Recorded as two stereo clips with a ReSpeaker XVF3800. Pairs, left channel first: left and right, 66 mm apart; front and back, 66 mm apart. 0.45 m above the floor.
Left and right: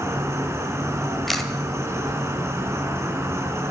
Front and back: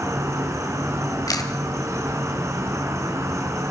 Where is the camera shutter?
Straight ahead, 1.6 m.